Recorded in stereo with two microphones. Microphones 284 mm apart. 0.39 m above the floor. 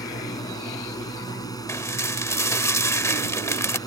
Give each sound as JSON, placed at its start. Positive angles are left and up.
{"t": 0.0, "sound": "a drone", "side_deg": 15}
{"t": 1.7, "sound": "dishes clattering", "side_deg": 10}